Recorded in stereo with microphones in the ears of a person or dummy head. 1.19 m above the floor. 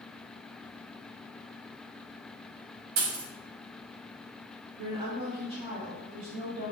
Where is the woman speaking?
35° right (ahead or behind), 0.5 m.